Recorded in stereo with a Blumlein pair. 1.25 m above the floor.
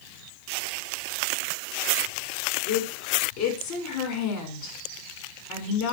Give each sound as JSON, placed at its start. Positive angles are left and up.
{"t": 2.7, "sound": "a woman speaking", "azimuth_deg": 50, "distance_m": 5.0}